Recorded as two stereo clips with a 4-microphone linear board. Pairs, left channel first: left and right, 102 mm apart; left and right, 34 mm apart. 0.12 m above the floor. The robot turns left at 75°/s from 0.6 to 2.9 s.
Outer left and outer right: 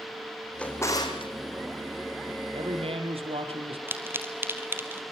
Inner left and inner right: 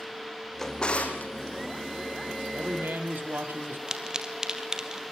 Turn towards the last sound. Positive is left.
turn(degrees=-20)  # may be behind; listen again after turning